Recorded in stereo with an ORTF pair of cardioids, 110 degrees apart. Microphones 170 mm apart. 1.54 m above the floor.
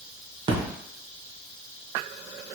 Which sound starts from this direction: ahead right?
A splash, at 0.5 s.